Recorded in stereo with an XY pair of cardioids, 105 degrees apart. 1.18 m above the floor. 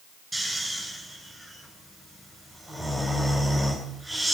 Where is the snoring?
15° right, 8 m.